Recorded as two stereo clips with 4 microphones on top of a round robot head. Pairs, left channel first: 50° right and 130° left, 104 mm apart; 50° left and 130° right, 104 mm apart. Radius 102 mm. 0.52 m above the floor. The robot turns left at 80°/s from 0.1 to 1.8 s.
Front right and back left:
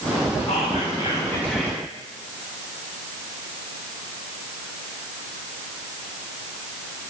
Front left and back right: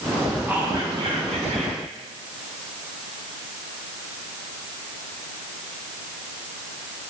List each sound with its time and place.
0.5 s whispering: 50° right, 1.7 m; by 1.8 s 155° right, 1.7 m